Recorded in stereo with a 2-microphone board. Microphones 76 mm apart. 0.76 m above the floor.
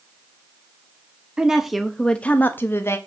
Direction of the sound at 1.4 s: 10° right (ahead or behind).